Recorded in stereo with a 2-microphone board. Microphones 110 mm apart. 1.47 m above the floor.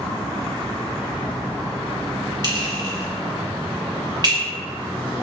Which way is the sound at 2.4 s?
40° right (ahead or behind).